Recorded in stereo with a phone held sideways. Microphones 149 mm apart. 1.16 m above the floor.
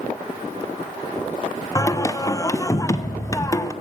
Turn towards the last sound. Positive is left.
turn(degrees=20)  # may be behind; listen again after turning